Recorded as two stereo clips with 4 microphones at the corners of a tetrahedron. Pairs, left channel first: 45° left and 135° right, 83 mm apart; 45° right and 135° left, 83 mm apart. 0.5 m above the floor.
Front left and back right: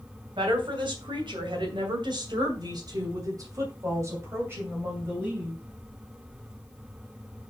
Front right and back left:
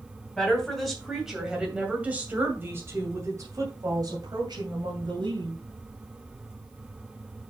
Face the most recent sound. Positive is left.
turn(degrees=155)